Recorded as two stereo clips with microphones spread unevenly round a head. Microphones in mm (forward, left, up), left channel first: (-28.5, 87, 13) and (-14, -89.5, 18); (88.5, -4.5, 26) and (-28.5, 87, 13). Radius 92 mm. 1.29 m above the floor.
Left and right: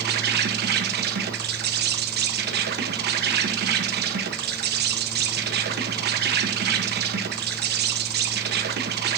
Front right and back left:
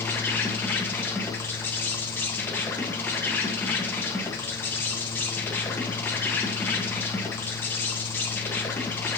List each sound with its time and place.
0.0 s an insect: 120° right, 1.4 m